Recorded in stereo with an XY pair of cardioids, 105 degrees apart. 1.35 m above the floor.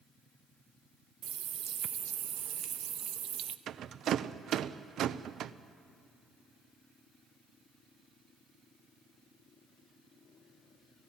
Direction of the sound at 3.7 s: 65° right.